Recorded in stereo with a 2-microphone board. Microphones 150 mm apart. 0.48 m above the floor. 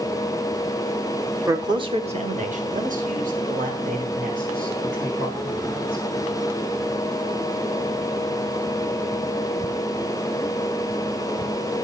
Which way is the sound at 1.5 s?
20° right (ahead or behind).